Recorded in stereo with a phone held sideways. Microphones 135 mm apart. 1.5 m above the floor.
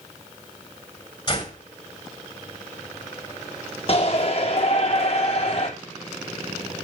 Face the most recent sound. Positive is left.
turn(degrees=50)  # may be behind; listen again after turning